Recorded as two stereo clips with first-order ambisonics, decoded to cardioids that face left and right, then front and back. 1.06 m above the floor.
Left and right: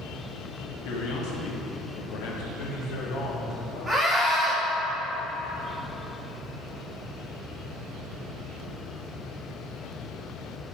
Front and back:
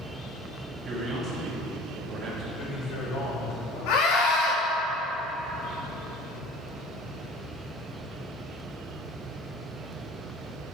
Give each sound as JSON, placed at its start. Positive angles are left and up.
{"t": 0.8, "sound": "a man speaking", "azimuth_deg": 110, "distance_m": 1.7}
{"t": 2.5, "sound": "a man speaking", "azimuth_deg": 45, "distance_m": 2.0}
{"t": 3.9, "sound": "a scream", "azimuth_deg": -15, "distance_m": 1.9}